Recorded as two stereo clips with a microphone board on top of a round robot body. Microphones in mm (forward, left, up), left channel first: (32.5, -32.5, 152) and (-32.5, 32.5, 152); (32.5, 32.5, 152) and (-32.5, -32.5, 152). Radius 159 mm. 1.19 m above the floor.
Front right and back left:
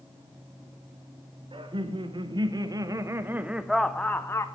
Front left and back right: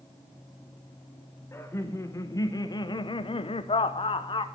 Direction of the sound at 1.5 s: 110° left.